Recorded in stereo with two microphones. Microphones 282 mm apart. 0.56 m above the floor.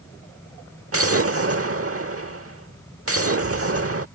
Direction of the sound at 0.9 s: 55° right (ahead or behind).